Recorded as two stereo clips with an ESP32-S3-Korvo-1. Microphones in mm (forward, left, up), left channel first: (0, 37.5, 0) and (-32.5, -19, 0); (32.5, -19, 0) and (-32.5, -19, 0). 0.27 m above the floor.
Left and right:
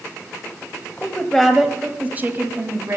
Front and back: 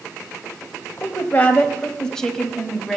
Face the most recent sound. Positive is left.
turn(degrees=-90)